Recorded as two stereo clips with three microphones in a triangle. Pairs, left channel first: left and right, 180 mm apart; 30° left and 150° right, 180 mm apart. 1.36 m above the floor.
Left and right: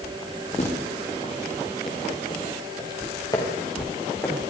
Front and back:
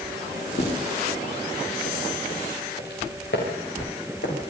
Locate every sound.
0.6 s footsteps: 40° left, 6.5 m; by 4.5 s 15° left, 7 m